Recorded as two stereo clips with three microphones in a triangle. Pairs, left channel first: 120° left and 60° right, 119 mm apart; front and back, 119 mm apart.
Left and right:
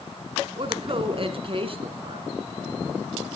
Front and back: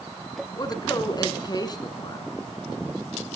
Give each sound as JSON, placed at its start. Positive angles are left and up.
{"t": 0.6, "sound": "a woman speaking", "azimuth_deg": -45, "distance_m": 2.0}